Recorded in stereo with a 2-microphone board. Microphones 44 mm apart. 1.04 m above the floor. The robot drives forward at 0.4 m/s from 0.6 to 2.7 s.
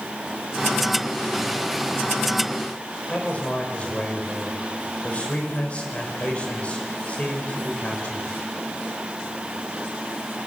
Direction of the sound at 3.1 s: 30° left (ahead or behind).